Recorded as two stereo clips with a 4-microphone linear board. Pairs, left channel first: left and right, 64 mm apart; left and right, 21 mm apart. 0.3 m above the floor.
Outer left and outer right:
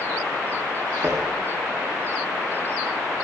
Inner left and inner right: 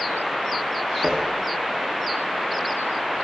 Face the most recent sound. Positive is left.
turn(degrees=-55)  # may be behind; listen again after turning